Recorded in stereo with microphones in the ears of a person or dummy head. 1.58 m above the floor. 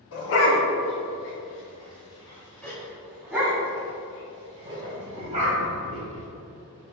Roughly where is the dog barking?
Left.